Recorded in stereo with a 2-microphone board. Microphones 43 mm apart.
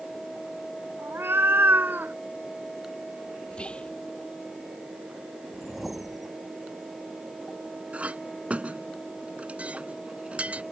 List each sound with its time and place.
1.0 s a cat meowing: 70° right (ahead or behind); by 2.1 s 50° right (ahead or behind)
3.5 s whispering: 30° left (ahead or behind)
5.5 s a whoosh: centre (ahead or behind)
7.9 s a clink: 35° right (ahead or behind)